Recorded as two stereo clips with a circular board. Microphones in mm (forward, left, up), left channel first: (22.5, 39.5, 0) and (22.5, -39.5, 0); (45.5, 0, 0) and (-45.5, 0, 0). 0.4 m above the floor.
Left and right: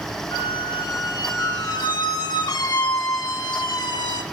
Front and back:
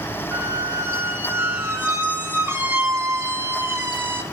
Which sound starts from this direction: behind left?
A squeak, at 0.3 s.